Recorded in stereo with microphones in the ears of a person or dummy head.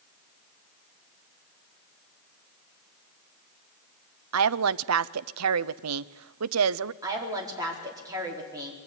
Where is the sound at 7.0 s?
20° right (ahead or behind), 4.5 m.